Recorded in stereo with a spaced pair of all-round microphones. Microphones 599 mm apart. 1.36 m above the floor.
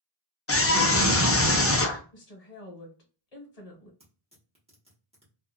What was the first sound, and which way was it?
A scream, 25° left (ahead or behind).